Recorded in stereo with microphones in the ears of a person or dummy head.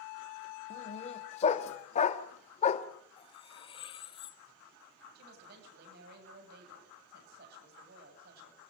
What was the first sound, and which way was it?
A dog barking, 40° left (ahead or behind).